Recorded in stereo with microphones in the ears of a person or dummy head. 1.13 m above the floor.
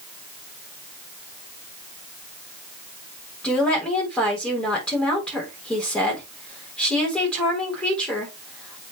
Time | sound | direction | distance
3.4 | a woman speaking | 5° left (ahead or behind) | 4 m